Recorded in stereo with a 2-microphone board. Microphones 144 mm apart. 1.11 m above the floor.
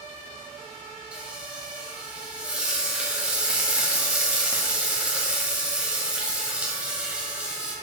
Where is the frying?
5° right (ahead or behind), 1.8 m.